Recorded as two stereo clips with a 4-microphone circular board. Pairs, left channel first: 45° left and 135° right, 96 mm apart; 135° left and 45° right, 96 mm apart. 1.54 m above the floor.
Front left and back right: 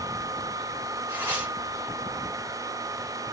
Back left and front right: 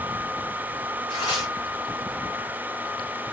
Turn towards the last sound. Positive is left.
turn(degrees=160)